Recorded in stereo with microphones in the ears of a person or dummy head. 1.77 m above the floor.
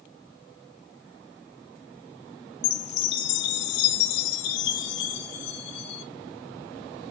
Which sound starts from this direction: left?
A chime, at 2.6 s.